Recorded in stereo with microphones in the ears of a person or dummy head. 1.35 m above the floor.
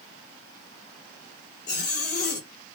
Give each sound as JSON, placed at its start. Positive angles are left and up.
{"t": 1.7, "sound": "a zipper", "side_deg": 60, "distance_m": 1.5}